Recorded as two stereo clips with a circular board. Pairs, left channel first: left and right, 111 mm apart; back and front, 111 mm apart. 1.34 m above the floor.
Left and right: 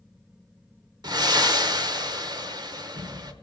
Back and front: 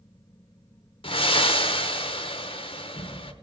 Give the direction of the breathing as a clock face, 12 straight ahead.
5 o'clock.